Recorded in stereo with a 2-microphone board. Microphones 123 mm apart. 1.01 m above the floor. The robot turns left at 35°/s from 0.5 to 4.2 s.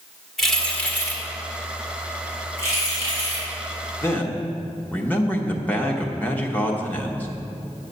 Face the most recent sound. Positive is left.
turn(degrees=15)  # may be behind; listen again after turning